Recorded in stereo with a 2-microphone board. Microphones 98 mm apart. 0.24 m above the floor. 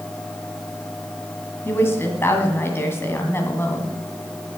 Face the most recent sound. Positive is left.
turn(degrees=25)  # may be behind; listen again after turning